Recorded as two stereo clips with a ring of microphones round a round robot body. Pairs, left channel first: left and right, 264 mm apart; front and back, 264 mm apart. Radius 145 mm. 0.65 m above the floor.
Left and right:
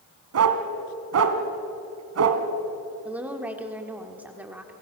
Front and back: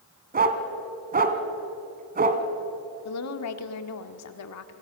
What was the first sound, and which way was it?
A dog barking, 120° right.